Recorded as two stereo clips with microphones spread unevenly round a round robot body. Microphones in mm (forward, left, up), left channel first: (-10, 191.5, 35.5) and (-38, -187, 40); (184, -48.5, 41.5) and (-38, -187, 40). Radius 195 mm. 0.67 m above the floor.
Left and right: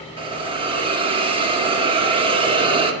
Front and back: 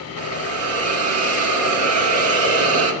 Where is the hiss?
170° right, 1.5 m.